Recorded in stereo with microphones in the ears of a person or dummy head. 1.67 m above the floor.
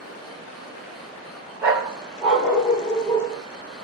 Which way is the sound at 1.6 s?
20° right (ahead or behind).